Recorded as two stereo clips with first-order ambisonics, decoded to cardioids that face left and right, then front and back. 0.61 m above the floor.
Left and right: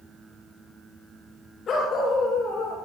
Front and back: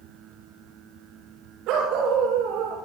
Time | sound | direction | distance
1.7 | a dog barking | 150° left | 9 m